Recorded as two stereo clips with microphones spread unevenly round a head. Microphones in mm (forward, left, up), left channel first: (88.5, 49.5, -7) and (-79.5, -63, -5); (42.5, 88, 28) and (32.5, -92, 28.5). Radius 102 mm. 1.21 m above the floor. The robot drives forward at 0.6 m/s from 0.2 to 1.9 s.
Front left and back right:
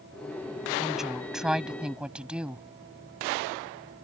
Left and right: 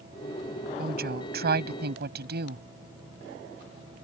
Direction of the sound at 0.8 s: 55° right.